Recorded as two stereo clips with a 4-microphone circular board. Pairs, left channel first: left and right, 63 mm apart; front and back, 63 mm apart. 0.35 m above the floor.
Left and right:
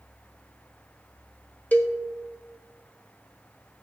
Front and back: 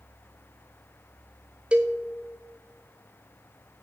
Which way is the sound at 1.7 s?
125° left.